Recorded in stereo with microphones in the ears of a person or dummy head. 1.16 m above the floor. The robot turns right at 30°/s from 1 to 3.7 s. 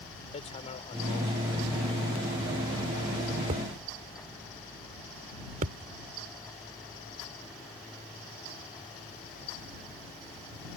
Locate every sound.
0.3 s hammering: 35° left (ahead or behind); by 5.9 s 45° right (ahead or behind)